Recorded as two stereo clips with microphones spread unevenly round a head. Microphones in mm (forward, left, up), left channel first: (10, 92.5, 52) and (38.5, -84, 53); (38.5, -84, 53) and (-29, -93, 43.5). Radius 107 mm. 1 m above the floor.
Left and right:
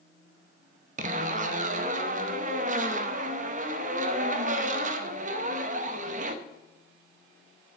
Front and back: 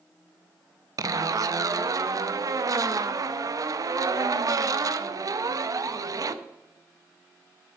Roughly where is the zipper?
Behind right.